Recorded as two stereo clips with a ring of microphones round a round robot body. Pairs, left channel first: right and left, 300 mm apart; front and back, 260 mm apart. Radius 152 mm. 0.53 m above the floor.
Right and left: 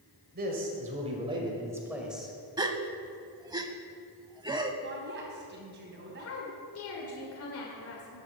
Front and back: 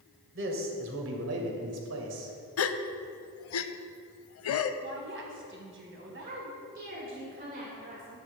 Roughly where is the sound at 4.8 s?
Behind left.